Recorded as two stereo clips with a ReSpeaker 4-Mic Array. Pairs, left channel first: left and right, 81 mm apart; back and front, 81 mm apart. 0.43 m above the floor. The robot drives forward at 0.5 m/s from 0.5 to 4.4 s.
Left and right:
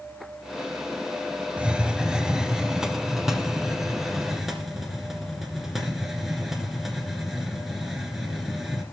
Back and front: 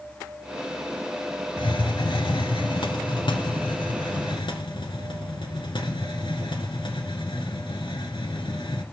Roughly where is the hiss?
Behind.